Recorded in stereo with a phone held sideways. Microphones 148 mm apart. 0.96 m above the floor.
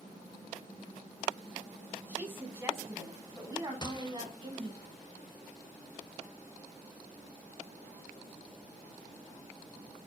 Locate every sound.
2.1 s a woman speaking: 15° right (ahead or behind), 7.5 m; by 4.8 s 35° right (ahead or behind), 7.5 m
3.8 s a gunshot: 30° left (ahead or behind), 1.6 m